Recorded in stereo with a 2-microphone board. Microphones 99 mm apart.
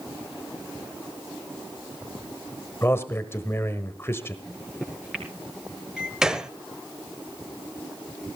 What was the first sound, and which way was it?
A man speaking, 25° left (ahead or behind).